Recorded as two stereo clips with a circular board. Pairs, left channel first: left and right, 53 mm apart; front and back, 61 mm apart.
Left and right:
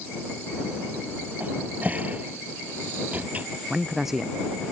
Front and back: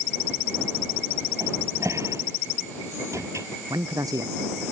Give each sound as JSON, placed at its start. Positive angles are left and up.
{"t": 1.4, "sound": "a cupboard door", "azimuth_deg": -150}
{"t": 3.7, "sound": "a man speaking", "azimuth_deg": -175}